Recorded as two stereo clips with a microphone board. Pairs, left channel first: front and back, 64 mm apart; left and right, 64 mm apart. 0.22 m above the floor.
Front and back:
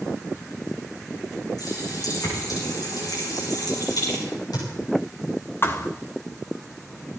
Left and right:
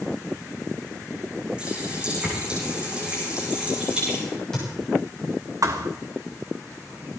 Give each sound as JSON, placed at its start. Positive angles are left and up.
{"t": 1.6, "sound": "a running tap", "azimuth_deg": -15, "distance_m": 8.5}
{"t": 4.3, "sound": "a crack", "azimuth_deg": 10, "distance_m": 9.0}
{"t": 5.6, "sound": "a thud", "azimuth_deg": -55, "distance_m": 1.4}